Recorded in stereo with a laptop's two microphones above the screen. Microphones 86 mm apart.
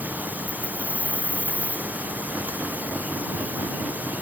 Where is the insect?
20° right (ahead or behind).